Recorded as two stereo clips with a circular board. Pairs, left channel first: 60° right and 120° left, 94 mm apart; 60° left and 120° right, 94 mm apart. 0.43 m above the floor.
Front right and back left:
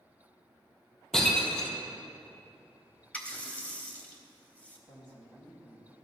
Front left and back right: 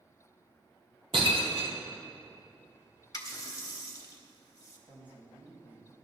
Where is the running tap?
15° left, 1.4 m.